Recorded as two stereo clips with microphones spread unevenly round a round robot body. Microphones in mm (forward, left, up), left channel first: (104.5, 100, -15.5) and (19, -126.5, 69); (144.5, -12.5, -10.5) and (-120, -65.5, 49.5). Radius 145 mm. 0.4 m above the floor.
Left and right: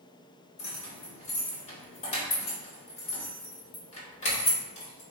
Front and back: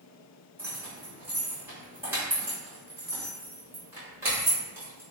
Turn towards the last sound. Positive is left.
turn(degrees=100)